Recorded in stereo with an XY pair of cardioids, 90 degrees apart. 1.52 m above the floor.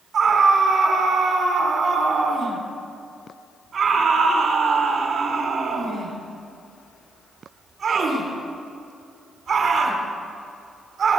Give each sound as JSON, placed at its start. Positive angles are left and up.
{"t": 0.1, "sound": "a scream", "azimuth_deg": -55, "distance_m": 5.5}